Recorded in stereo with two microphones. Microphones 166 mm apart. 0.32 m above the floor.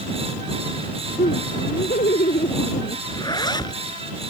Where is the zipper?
25° left (ahead or behind).